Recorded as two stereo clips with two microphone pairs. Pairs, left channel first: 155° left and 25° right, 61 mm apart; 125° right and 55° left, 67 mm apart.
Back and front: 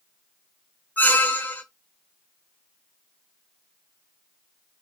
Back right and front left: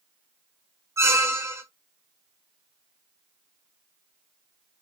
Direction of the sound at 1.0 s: 100° left.